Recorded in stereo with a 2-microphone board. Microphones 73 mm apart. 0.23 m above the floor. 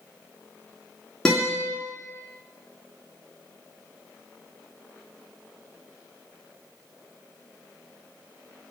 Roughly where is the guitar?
Centre.